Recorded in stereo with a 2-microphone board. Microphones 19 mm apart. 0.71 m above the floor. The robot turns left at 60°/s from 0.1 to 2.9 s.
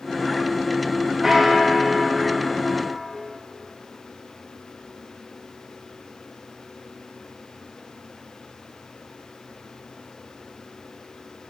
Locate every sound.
1.2 s a bell: 10° right (ahead or behind), 0.6 m; by 3.2 s 15° right (ahead or behind), 0.6 m